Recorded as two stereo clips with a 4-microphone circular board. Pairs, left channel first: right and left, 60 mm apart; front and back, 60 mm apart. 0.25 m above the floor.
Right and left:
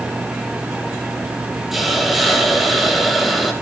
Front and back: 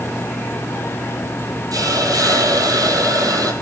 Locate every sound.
1.7 s a hiss: straight behind, 2.5 m